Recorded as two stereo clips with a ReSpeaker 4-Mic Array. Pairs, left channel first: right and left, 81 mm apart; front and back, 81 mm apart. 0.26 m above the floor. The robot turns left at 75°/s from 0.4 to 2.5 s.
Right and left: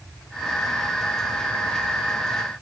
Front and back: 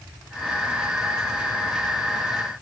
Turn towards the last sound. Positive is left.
No sound to turn to.